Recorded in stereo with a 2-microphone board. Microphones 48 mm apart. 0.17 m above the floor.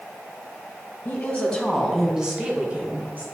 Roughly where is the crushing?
I don't hear crushing.